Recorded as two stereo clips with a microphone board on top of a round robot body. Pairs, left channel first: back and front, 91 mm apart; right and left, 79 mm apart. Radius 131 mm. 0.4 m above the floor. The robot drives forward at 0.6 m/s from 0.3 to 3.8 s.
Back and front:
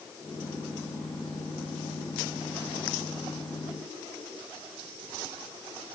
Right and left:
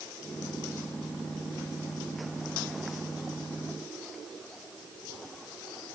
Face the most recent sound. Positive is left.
No sound to turn to.